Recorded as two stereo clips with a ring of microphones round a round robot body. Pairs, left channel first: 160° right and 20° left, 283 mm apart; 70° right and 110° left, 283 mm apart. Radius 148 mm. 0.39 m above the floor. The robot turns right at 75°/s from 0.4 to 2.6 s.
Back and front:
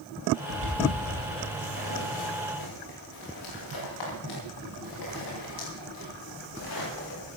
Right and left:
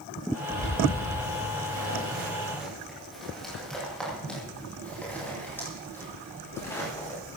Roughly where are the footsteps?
Ahead left.